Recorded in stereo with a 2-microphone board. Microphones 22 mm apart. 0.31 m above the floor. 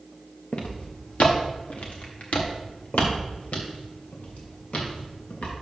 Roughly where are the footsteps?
Left.